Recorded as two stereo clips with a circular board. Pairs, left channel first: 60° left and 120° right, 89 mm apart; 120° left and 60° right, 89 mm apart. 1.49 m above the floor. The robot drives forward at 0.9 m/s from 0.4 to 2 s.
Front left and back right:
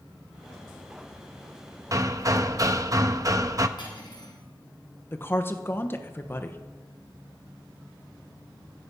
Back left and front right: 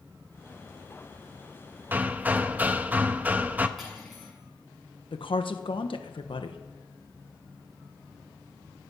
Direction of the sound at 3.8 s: 30° left.